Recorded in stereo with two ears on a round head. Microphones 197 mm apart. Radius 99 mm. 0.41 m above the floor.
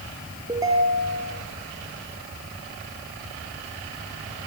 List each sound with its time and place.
0.5 s a ringtone: 15° right (ahead or behind), 3.5 m